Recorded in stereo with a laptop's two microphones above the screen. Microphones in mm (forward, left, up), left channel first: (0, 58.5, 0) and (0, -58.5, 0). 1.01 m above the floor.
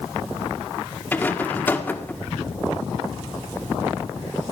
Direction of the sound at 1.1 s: 15° left (ahead or behind).